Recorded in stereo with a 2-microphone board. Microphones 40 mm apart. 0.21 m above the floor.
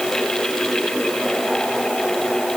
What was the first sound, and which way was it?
Only background noise.